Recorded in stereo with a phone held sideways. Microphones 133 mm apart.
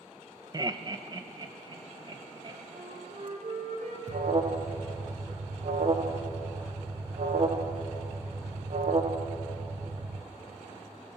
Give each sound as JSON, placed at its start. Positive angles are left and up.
{"t": 0.5, "sound": "laughter", "side_deg": -30, "distance_m": 0.9}
{"t": 2.7, "sound": "a flute", "side_deg": -60, "distance_m": 4.0}
{"t": 4.1, "sound": "an alarm", "side_deg": -55, "distance_m": 1.3}